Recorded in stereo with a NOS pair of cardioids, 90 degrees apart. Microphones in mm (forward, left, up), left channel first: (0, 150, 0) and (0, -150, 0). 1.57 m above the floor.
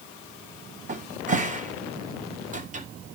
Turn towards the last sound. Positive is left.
turn(degrees=-25)